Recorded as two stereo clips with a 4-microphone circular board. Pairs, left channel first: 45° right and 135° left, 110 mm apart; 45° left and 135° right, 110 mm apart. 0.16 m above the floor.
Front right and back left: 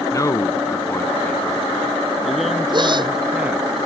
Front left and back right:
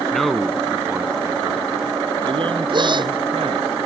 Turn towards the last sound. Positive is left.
turn(degrees=180)